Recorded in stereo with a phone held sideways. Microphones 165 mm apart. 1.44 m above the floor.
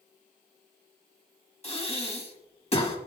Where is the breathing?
35° left (ahead or behind), 1.5 m.